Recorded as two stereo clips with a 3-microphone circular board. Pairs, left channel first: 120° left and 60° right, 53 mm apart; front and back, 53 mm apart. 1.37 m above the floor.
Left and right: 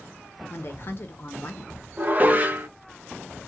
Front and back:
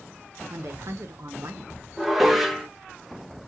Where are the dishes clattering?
95° right, 0.7 m.